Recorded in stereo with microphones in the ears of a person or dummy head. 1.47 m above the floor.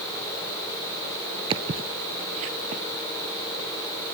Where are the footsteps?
30° right (ahead or behind); by 2.8 s 45° right (ahead or behind).